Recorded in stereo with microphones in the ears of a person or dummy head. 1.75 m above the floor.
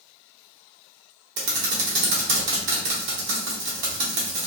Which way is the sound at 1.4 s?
60° right (ahead or behind).